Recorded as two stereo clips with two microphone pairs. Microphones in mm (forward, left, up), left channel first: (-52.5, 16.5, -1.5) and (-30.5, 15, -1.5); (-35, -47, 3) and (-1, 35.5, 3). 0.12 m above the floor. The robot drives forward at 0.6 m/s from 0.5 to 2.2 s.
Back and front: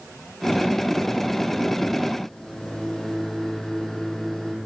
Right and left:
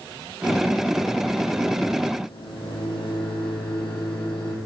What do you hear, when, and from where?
2.2 s a microwave: 125° right, 4.5 m